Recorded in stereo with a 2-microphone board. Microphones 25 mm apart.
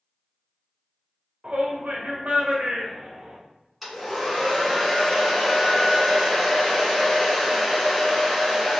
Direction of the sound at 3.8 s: Centre (ahead or behind).